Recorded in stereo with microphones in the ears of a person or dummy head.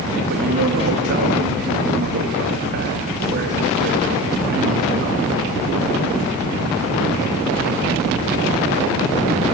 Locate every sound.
0.3 s a man speaking: 60° right (ahead or behind), 4 m